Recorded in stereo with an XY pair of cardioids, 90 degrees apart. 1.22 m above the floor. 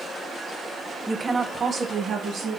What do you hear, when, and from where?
1.1 s a woman speaking: straight ahead, 0.5 m; by 2.6 s 75° right, 2.0 m